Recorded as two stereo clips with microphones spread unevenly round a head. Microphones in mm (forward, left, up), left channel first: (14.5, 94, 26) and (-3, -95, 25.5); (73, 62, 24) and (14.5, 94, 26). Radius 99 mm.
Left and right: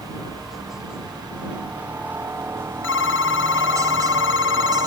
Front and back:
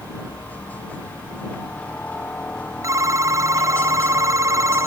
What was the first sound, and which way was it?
A helicopter, 5° right.